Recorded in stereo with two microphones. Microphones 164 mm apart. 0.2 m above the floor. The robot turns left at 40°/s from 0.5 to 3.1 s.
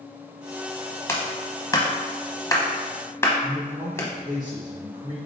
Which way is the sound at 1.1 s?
15° left (ahead or behind).